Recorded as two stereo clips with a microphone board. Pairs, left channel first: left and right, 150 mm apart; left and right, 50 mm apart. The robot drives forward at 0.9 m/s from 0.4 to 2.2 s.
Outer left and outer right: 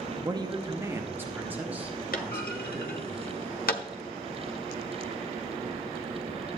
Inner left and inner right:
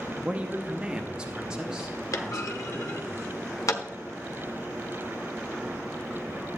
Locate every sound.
0.2 s a woman speaking: 25° right (ahead or behind), 0.7 m; by 3.1 s 10° right (ahead or behind), 2 m
2.1 s a clunk: 65° left (ahead or behind), 1.0 m; by 3.8 s 70° left (ahead or behind), 1.0 m